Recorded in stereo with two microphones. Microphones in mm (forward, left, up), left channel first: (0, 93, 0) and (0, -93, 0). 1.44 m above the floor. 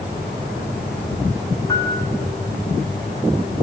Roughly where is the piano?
Centre.